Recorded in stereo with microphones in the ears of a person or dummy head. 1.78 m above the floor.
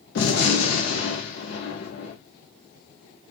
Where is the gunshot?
60° left (ahead or behind), 1.0 m.